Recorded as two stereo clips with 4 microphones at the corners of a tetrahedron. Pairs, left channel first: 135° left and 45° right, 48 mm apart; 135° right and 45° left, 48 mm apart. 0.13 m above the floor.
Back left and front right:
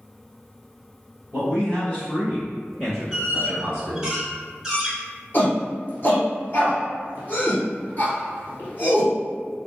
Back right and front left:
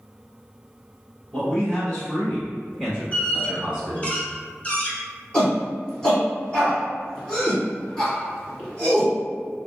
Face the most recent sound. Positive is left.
turn(degrees=160)